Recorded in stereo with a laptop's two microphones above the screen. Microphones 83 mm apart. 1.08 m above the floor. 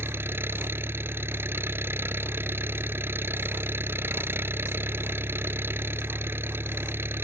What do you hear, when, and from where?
0.0 s an engine running: 30° right (ahead or behind)